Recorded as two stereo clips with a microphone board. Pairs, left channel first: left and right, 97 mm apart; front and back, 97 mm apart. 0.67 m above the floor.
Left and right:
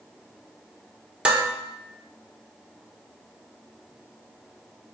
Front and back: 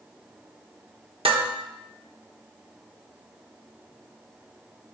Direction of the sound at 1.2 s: 170° right.